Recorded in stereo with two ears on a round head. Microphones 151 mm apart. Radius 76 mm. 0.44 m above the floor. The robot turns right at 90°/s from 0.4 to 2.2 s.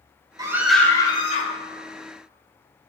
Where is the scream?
30° right, 1.9 m; by 1.5 s 70° left, 1.9 m.